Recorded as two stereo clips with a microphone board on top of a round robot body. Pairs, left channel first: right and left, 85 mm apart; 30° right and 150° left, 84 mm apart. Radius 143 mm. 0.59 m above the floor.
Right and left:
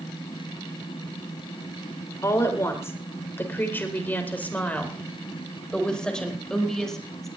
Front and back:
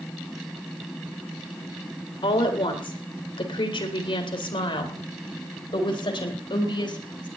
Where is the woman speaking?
35° right, 4 m; by 7.3 s 5° right, 5 m.